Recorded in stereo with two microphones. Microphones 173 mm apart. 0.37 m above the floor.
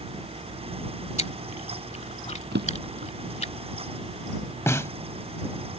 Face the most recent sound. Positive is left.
turn(degrees=15)  # may be behind; listen again after turning